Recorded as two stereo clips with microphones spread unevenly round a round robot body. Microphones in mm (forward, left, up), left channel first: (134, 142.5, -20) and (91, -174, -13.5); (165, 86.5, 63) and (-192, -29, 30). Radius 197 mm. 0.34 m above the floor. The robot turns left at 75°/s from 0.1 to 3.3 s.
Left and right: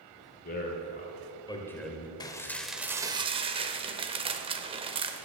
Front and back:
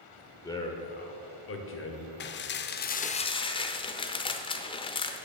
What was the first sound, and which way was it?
A man speaking, 105° left.